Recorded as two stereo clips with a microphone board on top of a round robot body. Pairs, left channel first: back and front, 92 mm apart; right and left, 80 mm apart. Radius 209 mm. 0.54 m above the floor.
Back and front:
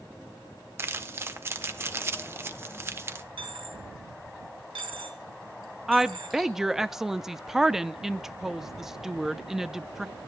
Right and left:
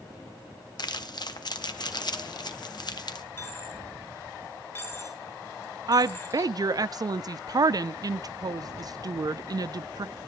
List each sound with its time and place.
0.8 s crumpling: 65° right, 1.2 m
3.4 s a dropped coin: 30° right, 3 m
5.9 s a woman speaking: 85° left, 0.8 m